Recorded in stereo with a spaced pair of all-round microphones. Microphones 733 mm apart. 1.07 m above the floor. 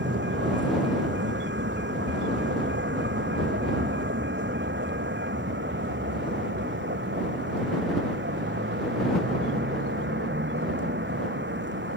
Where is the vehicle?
15° right (ahead or behind).